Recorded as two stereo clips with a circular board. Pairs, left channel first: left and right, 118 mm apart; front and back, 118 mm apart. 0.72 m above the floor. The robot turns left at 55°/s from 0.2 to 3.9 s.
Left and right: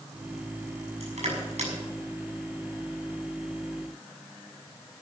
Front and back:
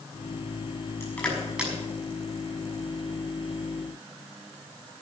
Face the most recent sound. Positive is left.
turn(degrees=135)